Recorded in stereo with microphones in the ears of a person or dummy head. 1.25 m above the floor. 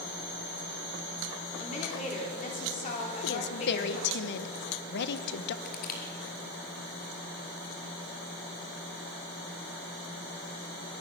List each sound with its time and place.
1.6 s a woman speaking: 35° left (ahead or behind), 4 m
3.2 s a woman speaking: 60° left (ahead or behind), 1.3 m
5.7 s crushing: 50° left (ahead or behind), 3.5 m